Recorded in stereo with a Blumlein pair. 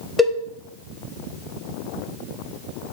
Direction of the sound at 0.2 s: 5° left.